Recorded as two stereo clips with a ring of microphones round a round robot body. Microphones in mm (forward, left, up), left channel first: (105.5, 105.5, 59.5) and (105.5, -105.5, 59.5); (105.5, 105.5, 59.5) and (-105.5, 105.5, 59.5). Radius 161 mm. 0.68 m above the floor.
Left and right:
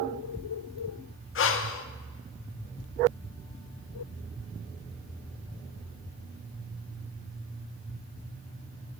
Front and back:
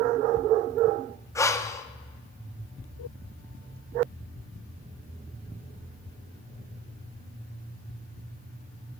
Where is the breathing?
75° left, 0.7 m.